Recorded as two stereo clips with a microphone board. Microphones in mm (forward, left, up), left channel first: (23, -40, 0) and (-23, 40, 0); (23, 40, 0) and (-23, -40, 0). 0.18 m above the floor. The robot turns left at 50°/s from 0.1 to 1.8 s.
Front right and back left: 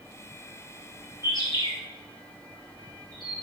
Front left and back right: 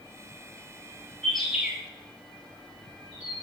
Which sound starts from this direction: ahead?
A bird, at 1.2 s.